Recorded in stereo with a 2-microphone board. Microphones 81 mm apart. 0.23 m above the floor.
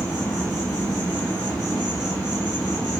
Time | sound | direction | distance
0.0 | an insect | 20° left (ahead or behind) | 1.9 m